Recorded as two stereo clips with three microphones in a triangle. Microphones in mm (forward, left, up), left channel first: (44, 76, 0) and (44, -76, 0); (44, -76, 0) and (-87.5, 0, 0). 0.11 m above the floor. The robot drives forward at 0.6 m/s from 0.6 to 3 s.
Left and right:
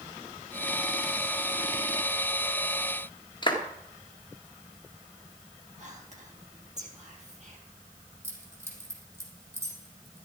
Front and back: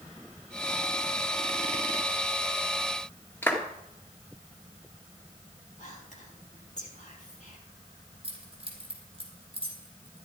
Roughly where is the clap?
Ahead left.